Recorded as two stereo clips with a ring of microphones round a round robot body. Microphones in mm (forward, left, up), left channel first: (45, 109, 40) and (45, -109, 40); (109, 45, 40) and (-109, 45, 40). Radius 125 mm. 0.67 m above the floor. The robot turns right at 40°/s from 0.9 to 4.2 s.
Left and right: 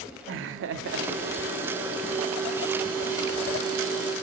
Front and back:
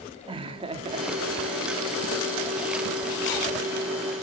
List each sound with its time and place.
0.3 s laughter: 115° right, 1.0 m; by 1.7 s 80° right, 1.0 m